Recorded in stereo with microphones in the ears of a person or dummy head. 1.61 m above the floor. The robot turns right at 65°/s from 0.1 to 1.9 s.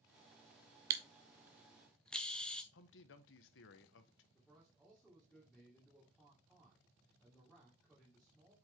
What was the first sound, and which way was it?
A camera shutter, 25° right (ahead or behind).